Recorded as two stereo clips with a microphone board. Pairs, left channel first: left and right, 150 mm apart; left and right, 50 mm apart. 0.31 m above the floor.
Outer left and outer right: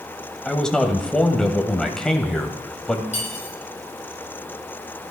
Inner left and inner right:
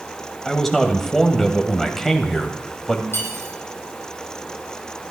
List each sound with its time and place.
0.5 s a man speaking: 5° left (ahead or behind), 2 m
3.1 s cutlery clinking: 50° left (ahead or behind), 7 m